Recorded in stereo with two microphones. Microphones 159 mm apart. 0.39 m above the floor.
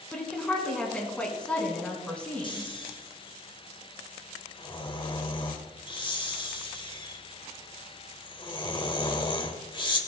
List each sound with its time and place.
0.1 s a woman speaking: 5° left (ahead or behind), 3.5 m
2.4 s snoring: 30° left (ahead or behind), 1.3 m